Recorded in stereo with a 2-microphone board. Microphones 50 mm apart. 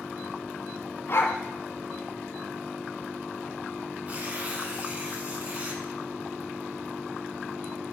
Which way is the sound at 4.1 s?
25° right (ahead or behind).